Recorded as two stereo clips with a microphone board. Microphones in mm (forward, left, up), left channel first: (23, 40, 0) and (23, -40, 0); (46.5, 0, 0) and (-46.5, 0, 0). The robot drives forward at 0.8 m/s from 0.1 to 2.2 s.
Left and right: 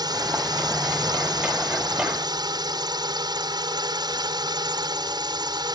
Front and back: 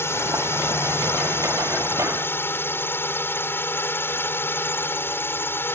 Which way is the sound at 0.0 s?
60° right.